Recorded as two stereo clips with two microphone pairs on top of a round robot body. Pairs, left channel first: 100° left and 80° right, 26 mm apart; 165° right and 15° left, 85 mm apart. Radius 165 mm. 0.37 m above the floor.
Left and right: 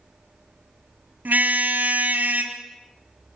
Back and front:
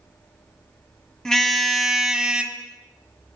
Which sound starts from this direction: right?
A car horn, at 1.2 s.